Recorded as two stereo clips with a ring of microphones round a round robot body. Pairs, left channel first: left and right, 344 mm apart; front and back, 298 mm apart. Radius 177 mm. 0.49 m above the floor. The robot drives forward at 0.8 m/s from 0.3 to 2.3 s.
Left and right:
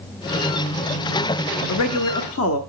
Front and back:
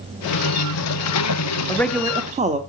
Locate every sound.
1.7 s a man speaking: 75° left, 0.9 m; by 2.6 s 120° left, 0.9 m